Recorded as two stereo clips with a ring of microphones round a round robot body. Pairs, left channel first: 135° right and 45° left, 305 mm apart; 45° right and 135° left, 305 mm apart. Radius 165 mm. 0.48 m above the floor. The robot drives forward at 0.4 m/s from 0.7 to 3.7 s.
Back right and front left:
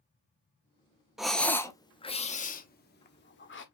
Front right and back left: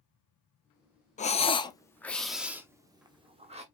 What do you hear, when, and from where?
1.2 s breathing: 40° right, 0.8 m; by 3.6 s 165° right, 1.1 m